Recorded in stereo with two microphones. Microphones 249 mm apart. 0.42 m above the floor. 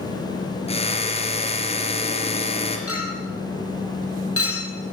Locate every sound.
0.7 s a drill: 25° left (ahead or behind), 4.5 m
2.9 s a clink: 65° left (ahead or behind), 7.5 m